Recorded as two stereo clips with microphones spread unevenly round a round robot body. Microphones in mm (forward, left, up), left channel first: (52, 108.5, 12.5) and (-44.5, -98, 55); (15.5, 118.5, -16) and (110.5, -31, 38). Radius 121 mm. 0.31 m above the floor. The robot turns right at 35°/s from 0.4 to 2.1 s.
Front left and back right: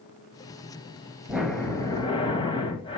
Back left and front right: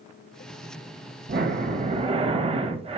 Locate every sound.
1.3 s breathing: 20° right, 1.4 m; by 3.0 s 5° left, 1.4 m